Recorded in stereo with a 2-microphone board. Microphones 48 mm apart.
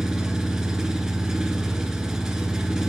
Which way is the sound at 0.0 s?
10° right (ahead or behind).